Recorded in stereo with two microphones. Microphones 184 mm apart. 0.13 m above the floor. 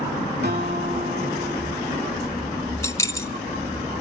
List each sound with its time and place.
0.4 s a guitar: 65° right (ahead or behind), 6 m
2.8 s keys jangling: 15° left (ahead or behind), 0.8 m